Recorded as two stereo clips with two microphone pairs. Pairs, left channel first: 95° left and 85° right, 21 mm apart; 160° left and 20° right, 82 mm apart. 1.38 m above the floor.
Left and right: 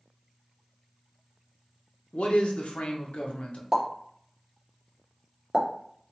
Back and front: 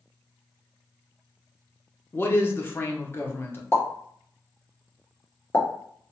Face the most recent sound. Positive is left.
turn(degrees=-145)